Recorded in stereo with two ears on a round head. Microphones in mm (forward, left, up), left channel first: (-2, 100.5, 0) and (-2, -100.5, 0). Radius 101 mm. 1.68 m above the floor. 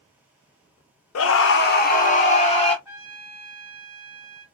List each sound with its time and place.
1.1 s a scream: 65° left (ahead or behind), 0.6 m; by 2.8 s 25° left (ahead or behind), 1.1 m
2.9 s a trumpet: 5° right (ahead or behind), 1.5 m